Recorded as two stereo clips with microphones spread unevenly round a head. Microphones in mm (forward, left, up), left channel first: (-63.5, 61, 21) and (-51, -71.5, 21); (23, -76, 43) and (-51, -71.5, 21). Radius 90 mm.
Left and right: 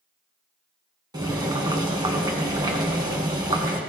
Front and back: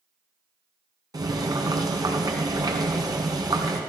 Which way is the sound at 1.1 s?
145° right.